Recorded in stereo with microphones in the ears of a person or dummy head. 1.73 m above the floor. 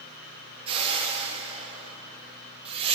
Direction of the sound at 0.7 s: 35° right (ahead or behind).